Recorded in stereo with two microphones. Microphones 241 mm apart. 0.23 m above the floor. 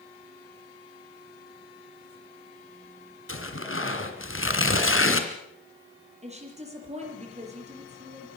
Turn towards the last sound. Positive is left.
turn(degrees=-25)  # may be behind; listen again after turning